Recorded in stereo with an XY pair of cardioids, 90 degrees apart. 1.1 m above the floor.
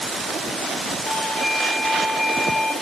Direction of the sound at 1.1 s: 55° left.